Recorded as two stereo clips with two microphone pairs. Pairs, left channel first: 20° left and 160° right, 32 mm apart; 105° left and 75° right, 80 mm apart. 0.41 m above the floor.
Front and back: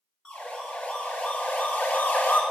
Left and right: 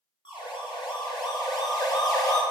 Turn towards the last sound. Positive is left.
turn(degrees=60)